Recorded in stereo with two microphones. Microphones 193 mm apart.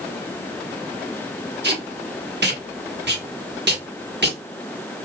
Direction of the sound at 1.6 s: 60° right (ahead or behind).